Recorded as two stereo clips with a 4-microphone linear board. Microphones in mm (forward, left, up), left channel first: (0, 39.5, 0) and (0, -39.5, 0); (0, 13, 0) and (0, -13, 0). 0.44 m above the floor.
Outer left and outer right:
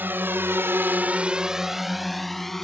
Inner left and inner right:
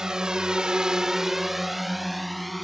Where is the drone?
25° right (ahead or behind); by 2.6 s 5° left (ahead or behind).